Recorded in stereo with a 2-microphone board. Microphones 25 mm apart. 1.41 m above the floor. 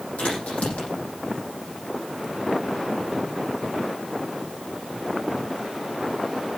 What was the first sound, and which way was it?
A crack, 75° left (ahead or behind).